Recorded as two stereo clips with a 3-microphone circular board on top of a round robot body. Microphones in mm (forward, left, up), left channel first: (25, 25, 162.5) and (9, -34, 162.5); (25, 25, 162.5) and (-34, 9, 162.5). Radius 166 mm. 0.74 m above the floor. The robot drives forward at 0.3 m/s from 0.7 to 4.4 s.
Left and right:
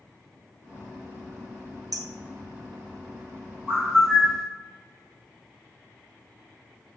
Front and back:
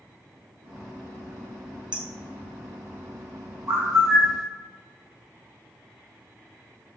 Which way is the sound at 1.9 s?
90° right.